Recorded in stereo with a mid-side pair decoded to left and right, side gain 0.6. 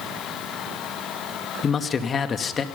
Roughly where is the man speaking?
Ahead left.